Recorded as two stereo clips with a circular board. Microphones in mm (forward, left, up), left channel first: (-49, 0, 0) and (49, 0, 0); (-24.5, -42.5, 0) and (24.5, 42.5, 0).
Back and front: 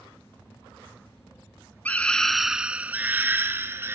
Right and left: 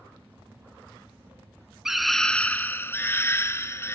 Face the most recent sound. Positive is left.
turn(degrees=-60)